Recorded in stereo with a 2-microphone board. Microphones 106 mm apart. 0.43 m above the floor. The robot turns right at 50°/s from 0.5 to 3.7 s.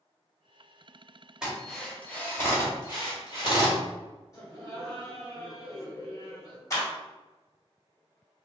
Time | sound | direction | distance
1.4 | a drill | 5° right (ahead or behind) | 1.5 m
4.3 | laughter | 30° left (ahead or behind) | 1.9 m
6.7 | a clap | 30° left (ahead or behind) | 1.8 m